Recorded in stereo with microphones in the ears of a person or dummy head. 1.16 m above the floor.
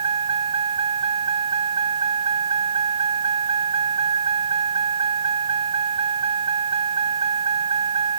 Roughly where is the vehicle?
Right.